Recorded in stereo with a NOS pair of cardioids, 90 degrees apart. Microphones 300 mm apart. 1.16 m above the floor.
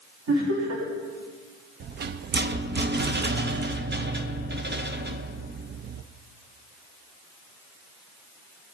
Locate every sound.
0.3 s laughter: 60° right, 3.5 m
1.8 s a rattle: 35° right, 0.6 m